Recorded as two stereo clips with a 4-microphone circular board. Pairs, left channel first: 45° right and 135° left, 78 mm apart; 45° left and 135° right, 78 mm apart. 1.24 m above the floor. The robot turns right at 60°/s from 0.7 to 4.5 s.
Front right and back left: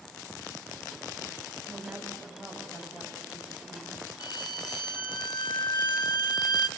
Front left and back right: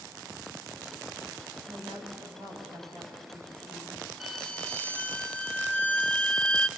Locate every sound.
1.7 s a woman speaking: straight behind, 8 m; by 4.0 s 40° right, 8 m
4.2 s a violin: 45° right, 1.9 m; by 6.7 s 30° right, 1.9 m